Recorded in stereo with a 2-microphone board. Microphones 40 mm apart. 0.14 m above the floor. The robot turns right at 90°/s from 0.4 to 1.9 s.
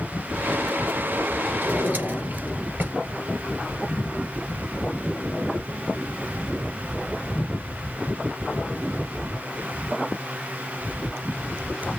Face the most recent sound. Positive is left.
turn(degrees=-50)  # may be behind; listen again after turning